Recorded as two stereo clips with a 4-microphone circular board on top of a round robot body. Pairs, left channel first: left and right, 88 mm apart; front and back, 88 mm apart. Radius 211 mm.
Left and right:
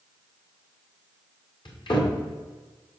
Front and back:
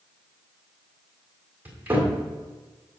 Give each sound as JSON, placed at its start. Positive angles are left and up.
{"t": 1.6, "sound": "a cupboard door", "azimuth_deg": 110, "distance_m": 1.8}